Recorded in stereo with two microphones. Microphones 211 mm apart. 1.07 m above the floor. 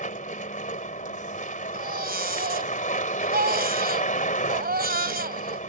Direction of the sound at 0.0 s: 40° left (ahead or behind).